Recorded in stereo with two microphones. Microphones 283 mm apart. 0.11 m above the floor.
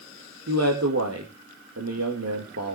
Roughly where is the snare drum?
No snare drum in this recording.